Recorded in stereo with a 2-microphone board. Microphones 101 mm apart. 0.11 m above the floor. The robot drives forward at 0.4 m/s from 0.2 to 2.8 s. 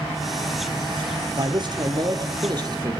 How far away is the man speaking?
About 3 m.